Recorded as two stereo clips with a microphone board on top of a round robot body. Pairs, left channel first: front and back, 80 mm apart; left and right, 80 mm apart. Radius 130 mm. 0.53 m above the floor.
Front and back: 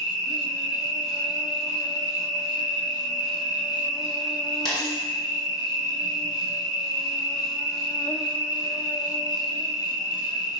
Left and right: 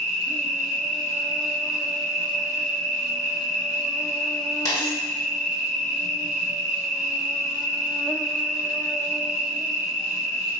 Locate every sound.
0.0 s an insect: 5° right, 0.8 m
4.7 s a dropped coin: 40° left, 1.5 m